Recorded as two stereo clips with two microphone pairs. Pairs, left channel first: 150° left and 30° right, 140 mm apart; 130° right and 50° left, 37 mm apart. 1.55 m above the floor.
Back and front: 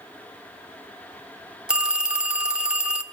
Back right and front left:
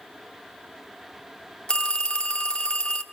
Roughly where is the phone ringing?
Right.